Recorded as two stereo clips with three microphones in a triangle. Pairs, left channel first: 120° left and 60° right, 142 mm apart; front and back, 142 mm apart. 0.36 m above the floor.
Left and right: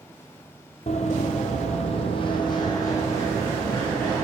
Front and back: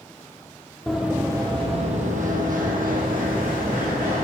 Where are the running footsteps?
90° left, 0.7 m; by 4.2 s 165° right, 2 m.